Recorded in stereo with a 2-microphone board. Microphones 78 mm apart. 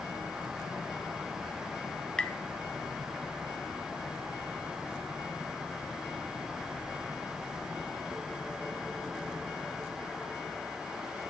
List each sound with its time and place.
2.2 s tapping: 10° left (ahead or behind), 0.6 m